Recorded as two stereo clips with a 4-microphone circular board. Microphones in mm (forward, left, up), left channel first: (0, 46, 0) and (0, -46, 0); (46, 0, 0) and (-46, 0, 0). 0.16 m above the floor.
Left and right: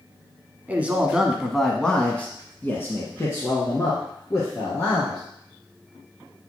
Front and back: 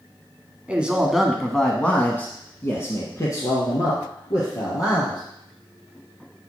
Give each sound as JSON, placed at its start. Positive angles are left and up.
{"t": 0.7, "sound": "a man speaking", "azimuth_deg": -130, "distance_m": 1.1}